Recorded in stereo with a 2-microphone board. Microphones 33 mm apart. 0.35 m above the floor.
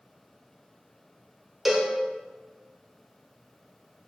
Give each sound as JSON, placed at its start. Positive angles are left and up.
{"t": 1.6, "sound": "a cowbell", "side_deg": -5, "distance_m": 0.6}